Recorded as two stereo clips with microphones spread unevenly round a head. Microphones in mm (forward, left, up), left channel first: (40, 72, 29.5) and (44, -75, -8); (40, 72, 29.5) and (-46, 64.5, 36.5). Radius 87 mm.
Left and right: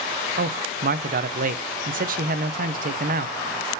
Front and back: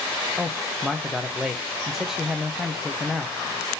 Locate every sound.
0.4 s a man speaking: 85° right, 0.6 m